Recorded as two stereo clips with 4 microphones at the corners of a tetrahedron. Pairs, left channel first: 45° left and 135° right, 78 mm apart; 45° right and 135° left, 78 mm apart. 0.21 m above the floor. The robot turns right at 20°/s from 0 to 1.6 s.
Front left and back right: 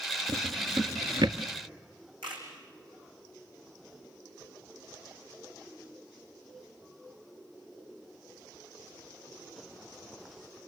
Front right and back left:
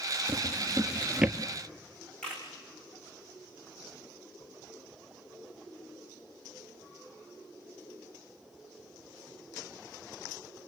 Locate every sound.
0.3 s a drawer: 165° right, 1.4 m; by 1.4 s 145° right, 1.4 m
2.2 s a camera shutter: 125° right, 5.5 m